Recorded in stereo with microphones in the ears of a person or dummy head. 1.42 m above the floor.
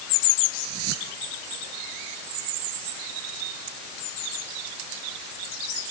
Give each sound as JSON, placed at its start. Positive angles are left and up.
{"t": 0.6, "sound": "a whoosh", "side_deg": -85}